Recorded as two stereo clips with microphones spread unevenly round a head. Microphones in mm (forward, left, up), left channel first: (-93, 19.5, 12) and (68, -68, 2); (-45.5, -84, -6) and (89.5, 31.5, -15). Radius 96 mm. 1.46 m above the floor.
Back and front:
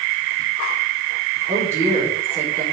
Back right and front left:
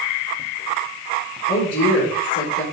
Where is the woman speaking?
105° right, 4 m.